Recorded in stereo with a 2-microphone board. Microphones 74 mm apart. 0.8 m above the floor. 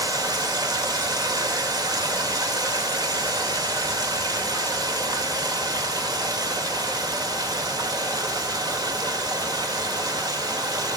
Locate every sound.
0.0 s running water: 65° right (ahead or behind), 1.6 m